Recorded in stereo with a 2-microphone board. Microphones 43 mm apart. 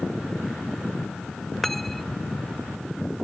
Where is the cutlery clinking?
5° left (ahead or behind).